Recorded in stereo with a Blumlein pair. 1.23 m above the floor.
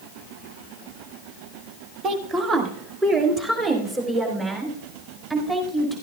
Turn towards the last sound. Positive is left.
turn(degrees=-15)